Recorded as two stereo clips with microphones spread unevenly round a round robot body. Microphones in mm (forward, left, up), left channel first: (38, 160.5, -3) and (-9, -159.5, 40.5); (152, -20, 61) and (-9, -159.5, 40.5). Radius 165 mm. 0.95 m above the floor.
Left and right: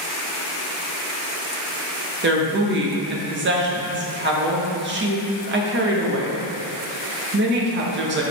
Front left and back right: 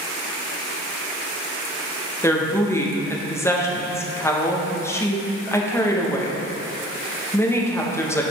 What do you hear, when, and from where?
2.2 s a woman speaking: 40° right, 1.2 m